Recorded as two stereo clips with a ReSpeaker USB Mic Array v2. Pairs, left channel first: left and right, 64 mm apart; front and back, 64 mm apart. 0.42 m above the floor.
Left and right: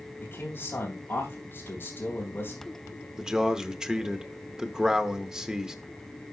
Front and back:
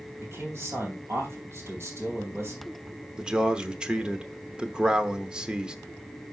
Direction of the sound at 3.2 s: 140° right.